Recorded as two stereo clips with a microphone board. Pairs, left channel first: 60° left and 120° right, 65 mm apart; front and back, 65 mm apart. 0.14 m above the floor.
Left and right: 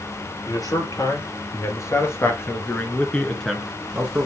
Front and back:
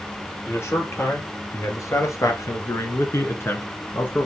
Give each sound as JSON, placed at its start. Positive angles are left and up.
{"t": 0.5, "sound": "a man speaking", "azimuth_deg": 45, "distance_m": 3.0}